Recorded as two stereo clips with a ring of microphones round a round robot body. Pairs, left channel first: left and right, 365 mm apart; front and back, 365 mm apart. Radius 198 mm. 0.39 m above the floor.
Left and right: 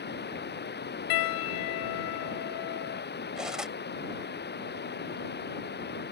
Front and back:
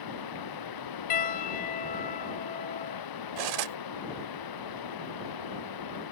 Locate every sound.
0.0 s running water: 25° left
1.1 s a piano: 65° left
3.4 s cutlery clinking: straight behind